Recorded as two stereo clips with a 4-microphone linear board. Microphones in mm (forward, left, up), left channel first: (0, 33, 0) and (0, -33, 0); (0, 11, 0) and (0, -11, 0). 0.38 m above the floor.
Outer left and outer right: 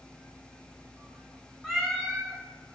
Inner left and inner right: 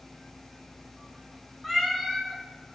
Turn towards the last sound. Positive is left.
turn(degrees=0)  # may be behind; listen again after turning